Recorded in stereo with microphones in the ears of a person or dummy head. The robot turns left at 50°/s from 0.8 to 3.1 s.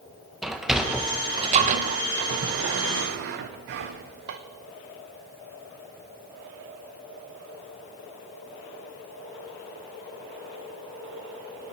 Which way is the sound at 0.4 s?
5° right (ahead or behind).